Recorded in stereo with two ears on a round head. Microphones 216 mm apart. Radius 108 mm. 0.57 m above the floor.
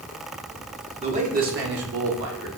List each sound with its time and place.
1.0 s a man speaking: 25° right (ahead or behind), 1.4 m; by 2.5 s 60° right (ahead or behind), 2 m